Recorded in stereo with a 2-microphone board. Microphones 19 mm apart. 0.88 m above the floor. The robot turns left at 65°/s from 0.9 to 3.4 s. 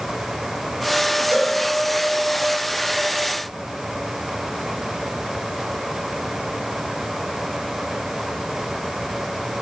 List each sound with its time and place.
1.3 s a cowbell: 85° right, 10 m; by 1.5 s 75° right (ahead or behind), 10 m